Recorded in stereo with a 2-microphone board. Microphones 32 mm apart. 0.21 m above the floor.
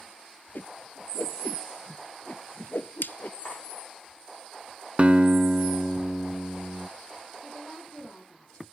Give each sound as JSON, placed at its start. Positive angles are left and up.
{"t": 0.6, "sound": "a whoosh", "side_deg": 75, "distance_m": 0.6}
{"t": 3.4, "sound": "cutlery clinking", "side_deg": 85, "distance_m": 8.0}
{"t": 5.0, "sound": "a guitar", "side_deg": -40, "distance_m": 0.5}
{"t": 7.4, "sound": "a woman speaking", "side_deg": 45, "distance_m": 9.0}